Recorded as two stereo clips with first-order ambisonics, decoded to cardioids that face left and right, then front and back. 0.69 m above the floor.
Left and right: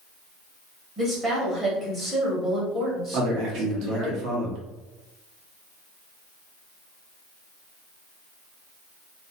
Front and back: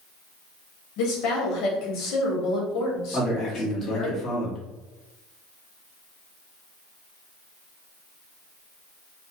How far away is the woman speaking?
About 1.1 m.